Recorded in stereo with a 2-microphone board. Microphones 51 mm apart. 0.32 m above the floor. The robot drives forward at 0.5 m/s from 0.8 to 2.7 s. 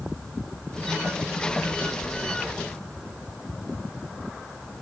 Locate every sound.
Only background noise.